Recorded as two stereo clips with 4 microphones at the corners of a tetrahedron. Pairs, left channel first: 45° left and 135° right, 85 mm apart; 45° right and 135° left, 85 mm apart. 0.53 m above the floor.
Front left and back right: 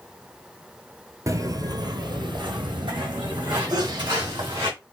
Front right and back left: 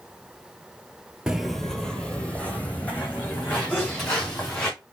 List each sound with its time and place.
1.3 s footsteps: 150° right, 0.6 m; by 4.7 s 110° right, 3 m
3.7 s a sneeze: 110° right, 2.5 m